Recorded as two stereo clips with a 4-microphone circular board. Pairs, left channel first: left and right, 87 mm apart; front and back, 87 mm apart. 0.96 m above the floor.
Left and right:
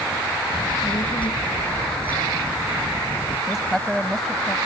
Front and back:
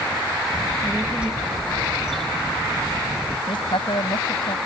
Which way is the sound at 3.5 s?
Straight ahead.